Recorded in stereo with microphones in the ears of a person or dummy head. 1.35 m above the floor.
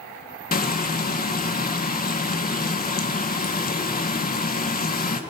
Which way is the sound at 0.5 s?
35° left (ahead or behind).